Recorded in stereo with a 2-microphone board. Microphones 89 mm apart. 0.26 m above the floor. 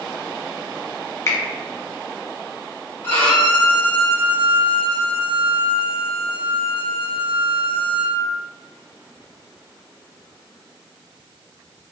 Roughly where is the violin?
Left.